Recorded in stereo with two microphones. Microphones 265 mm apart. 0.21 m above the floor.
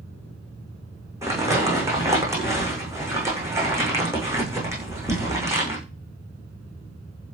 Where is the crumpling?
10° right (ahead or behind), 7.5 m.